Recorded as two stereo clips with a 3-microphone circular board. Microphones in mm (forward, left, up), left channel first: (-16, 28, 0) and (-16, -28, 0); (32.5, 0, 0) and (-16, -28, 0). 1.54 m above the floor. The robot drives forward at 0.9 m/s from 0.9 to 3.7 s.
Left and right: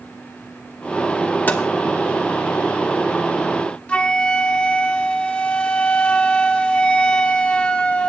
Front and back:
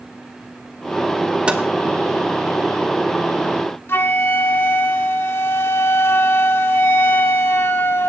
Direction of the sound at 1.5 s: 145° left.